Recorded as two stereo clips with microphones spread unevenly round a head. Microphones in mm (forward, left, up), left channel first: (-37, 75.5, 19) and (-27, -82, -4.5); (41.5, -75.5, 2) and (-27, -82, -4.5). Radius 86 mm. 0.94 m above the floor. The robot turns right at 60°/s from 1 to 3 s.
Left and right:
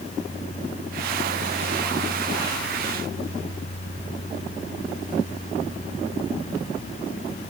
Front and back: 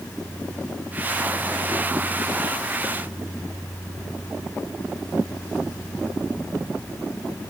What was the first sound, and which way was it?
Only background noise.